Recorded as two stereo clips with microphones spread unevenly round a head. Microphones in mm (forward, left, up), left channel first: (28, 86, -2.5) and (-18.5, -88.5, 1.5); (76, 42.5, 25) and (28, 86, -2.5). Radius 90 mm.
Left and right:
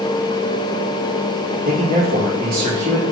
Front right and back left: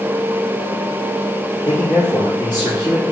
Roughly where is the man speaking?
Right.